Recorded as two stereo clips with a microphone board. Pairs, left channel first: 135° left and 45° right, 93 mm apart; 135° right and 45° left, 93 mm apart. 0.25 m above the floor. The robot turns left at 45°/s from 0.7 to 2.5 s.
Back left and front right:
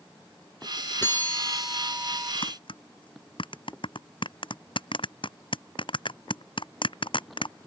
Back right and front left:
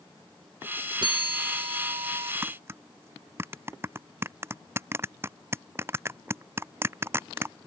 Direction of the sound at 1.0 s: 70° left.